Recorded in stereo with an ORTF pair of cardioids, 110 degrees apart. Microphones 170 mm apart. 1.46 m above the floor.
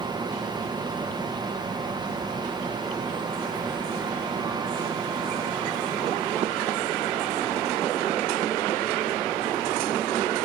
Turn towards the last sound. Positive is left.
turn(degrees=-25)